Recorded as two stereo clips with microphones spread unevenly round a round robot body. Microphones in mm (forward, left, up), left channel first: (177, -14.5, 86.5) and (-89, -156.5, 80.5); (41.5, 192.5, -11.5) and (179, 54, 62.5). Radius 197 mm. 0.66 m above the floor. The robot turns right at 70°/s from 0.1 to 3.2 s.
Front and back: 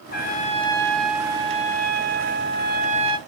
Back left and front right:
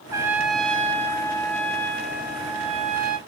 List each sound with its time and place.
0.1 s a trumpet: 55° left, 0.7 m; by 3.2 s 90° right, 0.7 m